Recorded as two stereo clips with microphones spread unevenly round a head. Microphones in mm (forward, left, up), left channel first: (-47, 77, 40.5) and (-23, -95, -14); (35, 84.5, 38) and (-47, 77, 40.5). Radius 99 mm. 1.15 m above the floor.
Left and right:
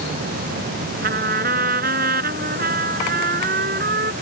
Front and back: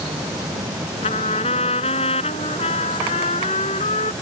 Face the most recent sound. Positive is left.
turn(degrees=-30)